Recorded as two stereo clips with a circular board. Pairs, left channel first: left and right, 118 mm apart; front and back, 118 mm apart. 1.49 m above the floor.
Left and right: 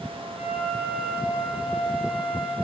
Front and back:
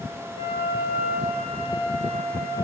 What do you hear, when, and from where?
0.4 s a flute: 5° right, 4 m